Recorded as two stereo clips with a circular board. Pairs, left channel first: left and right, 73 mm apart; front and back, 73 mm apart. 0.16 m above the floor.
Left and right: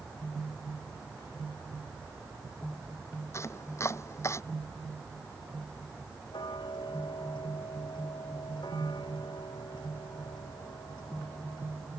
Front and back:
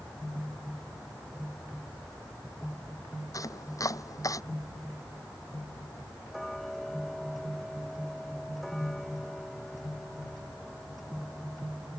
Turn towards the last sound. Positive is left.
turn(degrees=85)